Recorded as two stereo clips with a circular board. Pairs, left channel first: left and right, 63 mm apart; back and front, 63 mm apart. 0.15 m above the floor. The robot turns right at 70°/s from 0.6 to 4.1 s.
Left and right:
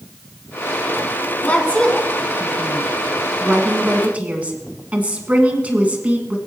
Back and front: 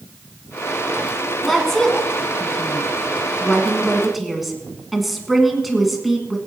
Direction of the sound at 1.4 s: 85° left.